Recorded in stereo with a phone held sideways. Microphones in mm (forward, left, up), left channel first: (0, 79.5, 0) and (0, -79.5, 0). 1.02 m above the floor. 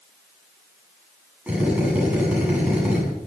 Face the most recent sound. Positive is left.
turn(degrees=-10)  # may be behind; listen again after turning